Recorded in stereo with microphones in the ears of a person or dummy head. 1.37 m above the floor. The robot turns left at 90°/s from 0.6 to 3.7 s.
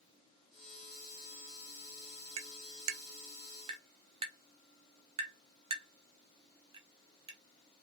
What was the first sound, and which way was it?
Tapping, 35° right (ahead or behind).